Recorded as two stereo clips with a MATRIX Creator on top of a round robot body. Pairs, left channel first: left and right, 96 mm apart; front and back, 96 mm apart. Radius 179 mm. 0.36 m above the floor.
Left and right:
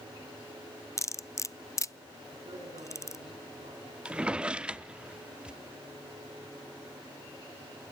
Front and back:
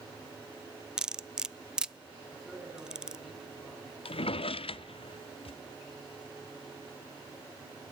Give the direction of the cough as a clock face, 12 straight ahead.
I don't hear a cough.